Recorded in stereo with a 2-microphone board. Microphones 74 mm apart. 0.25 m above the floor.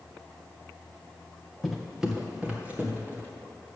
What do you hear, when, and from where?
1.6 s footsteps: centre (ahead or behind), 1.6 m; by 3.3 s 25° right (ahead or behind), 3 m